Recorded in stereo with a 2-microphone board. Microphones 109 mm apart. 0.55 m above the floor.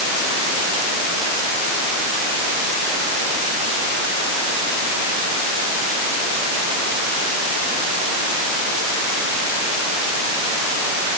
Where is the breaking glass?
I don't hear breaking glass.